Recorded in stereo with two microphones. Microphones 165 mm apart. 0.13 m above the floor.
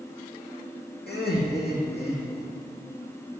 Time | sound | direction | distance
1.1 | laughter | 80° left | 6.5 m